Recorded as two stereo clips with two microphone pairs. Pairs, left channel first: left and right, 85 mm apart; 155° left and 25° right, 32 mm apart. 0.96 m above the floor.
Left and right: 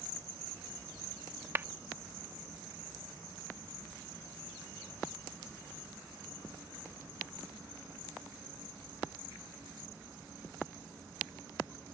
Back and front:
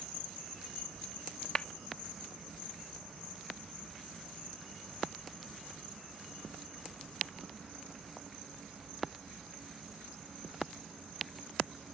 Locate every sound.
1.6 s a clap: 150° right